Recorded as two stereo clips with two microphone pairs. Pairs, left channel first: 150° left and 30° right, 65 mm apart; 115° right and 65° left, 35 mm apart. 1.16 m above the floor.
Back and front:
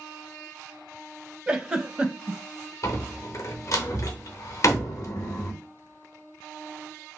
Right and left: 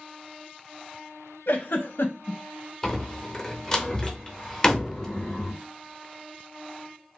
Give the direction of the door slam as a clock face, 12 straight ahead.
6 o'clock.